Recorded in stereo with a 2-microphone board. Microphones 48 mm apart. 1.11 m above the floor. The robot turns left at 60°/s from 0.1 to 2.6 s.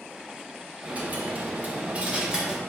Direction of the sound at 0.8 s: 60° right.